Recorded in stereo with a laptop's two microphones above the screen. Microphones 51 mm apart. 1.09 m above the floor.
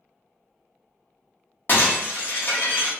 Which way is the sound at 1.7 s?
45° left (ahead or behind).